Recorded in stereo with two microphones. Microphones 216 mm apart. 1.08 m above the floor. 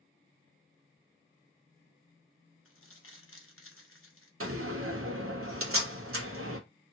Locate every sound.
2.6 s crumpling: 75° left (ahead or behind), 0.8 m
4.4 s a door slam: 75° right (ahead or behind), 0.8 m